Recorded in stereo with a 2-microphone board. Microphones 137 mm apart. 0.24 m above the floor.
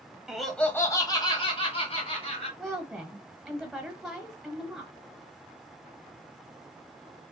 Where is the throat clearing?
No throat clearing in this recording.